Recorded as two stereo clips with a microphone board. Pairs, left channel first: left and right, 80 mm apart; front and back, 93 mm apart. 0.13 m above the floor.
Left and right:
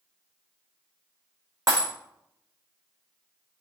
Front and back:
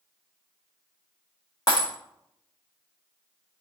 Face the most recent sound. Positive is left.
turn(degrees=-45)